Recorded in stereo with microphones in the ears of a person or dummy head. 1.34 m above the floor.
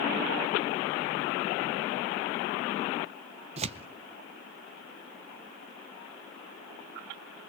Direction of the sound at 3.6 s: 35° right (ahead or behind).